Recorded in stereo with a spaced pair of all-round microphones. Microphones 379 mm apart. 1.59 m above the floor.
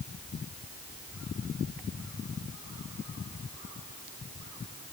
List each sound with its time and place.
Only background noise.